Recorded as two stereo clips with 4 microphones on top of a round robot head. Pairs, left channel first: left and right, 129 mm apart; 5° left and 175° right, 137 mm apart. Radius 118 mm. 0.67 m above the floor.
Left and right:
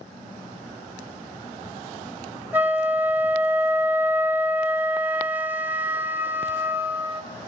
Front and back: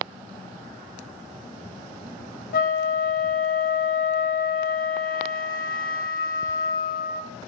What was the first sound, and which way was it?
A flute, 10° right.